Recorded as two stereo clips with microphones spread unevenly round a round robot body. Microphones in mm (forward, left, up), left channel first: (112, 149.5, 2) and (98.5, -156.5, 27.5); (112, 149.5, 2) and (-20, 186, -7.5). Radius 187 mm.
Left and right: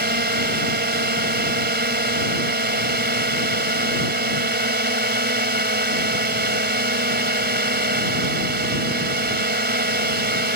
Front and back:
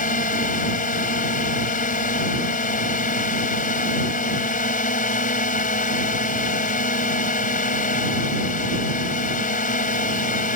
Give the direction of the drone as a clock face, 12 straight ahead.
1 o'clock.